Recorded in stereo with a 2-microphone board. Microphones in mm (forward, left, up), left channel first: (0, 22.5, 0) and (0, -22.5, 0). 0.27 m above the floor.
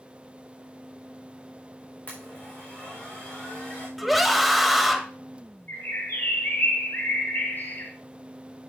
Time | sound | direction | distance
2.1 | a blender | 35° left (ahead or behind) | 4.5 m
4.0 | a scream | centre (ahead or behind) | 1.2 m
5.7 | a bird | 50° left (ahead or behind) | 2.5 m